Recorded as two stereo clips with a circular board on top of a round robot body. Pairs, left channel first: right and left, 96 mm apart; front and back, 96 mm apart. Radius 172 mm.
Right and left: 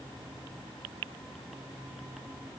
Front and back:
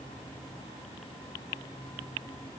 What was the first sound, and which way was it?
Only background noise.